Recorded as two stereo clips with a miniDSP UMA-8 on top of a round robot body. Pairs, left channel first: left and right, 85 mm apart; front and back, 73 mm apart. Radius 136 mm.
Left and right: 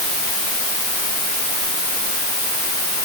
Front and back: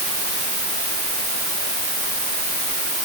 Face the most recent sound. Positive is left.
No sound to turn to.